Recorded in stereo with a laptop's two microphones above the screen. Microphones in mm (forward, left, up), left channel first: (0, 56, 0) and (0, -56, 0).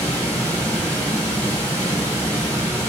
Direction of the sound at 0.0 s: 15° left (ahead or behind).